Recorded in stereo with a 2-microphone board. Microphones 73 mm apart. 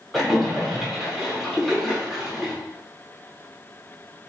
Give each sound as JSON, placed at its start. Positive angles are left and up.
{"t": 0.1, "sound": "a splash", "side_deg": 0, "distance_m": 1.5}